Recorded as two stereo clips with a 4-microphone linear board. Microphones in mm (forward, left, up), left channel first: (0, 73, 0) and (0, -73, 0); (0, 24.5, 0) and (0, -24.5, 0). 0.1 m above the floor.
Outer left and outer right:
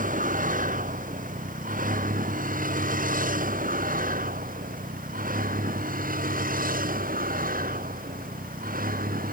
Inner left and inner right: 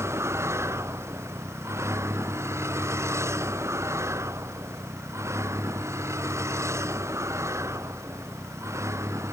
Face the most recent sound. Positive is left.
turn(degrees=-75)  # may be behind; listen again after turning